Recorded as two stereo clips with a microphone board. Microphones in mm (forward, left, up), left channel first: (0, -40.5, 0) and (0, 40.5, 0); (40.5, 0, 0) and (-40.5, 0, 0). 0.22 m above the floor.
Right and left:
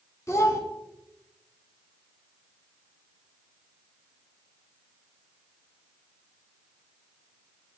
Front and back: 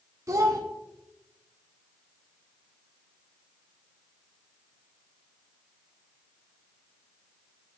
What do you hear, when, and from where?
0.3 s a child speaking: 135° right, 1.1 m